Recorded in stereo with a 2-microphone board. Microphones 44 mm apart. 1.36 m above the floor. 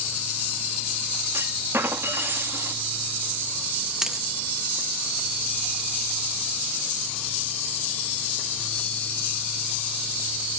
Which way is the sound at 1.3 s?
70° right (ahead or behind).